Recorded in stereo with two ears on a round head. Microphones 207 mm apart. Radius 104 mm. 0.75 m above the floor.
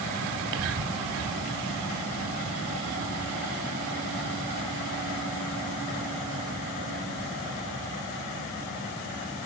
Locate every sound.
0.3 s whispering: 65° right (ahead or behind), 2 m